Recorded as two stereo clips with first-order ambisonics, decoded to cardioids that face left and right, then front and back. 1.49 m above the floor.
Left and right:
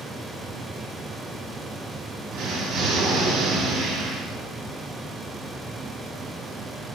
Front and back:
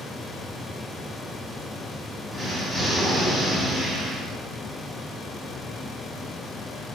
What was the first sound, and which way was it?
An explosion, 85° right.